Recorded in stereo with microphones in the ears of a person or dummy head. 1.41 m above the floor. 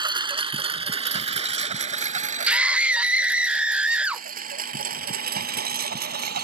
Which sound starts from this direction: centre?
A scream, at 2.5 s.